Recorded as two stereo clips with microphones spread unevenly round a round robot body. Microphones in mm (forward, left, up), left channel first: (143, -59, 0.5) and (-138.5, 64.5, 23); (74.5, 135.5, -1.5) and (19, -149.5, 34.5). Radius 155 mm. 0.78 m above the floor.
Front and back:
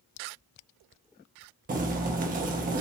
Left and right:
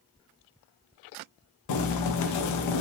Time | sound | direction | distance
1.7 | boiling | 90° left | 0.6 m